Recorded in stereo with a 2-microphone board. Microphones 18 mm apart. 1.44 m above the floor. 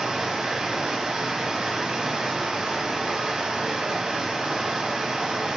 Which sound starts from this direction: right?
Running water, at 0.0 s.